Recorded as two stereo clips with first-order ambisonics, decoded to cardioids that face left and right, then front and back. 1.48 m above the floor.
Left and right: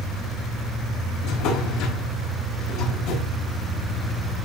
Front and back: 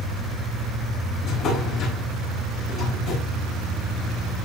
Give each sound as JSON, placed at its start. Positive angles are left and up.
{"t": 1.2, "sound": "a drawer", "azimuth_deg": 55, "distance_m": 5.0}